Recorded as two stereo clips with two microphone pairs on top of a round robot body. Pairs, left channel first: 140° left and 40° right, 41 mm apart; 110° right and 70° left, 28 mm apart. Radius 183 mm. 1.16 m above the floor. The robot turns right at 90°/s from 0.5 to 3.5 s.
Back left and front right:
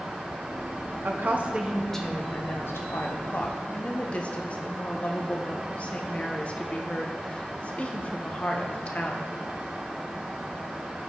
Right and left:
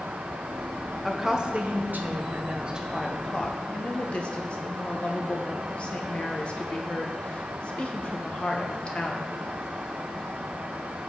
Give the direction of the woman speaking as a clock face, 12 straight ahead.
1 o'clock.